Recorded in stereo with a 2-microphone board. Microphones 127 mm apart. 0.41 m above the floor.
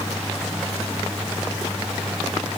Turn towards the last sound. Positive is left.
No sound to turn to.